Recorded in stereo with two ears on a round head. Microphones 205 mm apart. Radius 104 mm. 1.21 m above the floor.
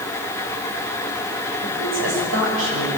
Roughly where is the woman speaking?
Right.